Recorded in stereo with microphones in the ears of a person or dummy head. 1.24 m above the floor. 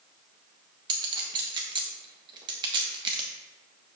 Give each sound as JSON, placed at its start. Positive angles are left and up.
{"t": 0.9, "sound": "a clink", "side_deg": -25, "distance_m": 1.0}